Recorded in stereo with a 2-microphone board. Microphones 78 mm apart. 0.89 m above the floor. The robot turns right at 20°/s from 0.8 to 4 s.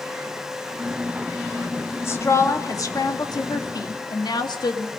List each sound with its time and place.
2.0 s a woman speaking: 35° left, 1.9 m; by 4.9 s 75° left, 1.9 m